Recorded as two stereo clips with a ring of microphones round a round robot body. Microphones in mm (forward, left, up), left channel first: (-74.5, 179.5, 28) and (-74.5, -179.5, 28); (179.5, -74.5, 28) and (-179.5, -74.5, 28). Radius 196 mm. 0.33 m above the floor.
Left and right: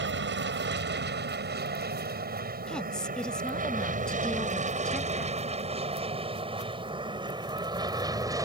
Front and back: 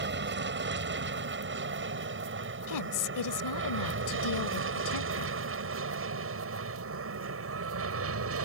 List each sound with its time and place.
0.0 s an aircraft: 135° right; by 8.4 s 165° right
2.7 s a woman speaking: 5° left